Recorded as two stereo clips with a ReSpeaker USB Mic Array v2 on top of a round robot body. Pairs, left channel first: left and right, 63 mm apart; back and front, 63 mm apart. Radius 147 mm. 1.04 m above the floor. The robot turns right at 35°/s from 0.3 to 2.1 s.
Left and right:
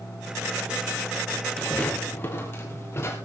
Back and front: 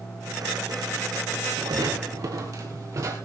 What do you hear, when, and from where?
1.6 s footsteps: 5° left, 2 m; by 3.1 s 40° left, 3 m